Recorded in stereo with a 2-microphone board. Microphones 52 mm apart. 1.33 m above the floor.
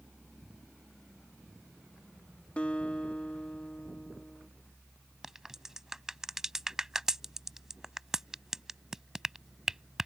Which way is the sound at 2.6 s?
25° left (ahead or behind).